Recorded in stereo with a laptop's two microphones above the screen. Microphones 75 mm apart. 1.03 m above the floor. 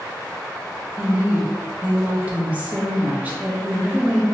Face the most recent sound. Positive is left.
turn(degrees=-20)  # may be behind; listen again after turning